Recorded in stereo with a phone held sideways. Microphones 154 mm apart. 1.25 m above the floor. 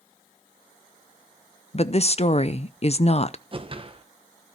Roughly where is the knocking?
No knocking in this recording.